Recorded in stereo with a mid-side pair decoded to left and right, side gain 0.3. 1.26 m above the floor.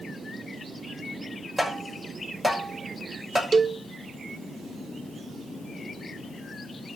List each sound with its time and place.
1.6 s tapping: straight ahead, 6 m
3.5 s a cowbell: 45° right, 0.7 m